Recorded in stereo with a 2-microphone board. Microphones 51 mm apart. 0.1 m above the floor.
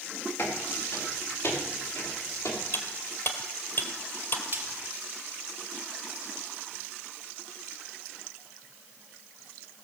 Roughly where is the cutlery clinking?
Left.